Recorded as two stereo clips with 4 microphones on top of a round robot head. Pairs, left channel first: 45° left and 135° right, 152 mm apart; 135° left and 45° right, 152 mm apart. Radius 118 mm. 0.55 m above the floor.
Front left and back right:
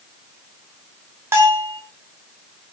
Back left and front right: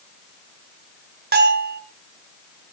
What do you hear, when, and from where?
1.3 s a bell: 60° right, 5.5 m